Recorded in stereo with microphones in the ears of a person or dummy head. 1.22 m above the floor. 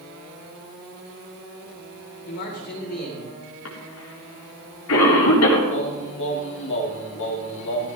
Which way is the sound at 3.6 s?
80° left.